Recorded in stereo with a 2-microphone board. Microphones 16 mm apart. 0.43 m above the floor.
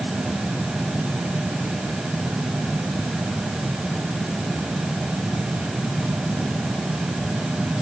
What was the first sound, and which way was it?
Only background noise.